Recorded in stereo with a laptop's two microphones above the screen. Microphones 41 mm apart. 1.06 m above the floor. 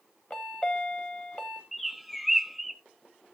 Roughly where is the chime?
Left.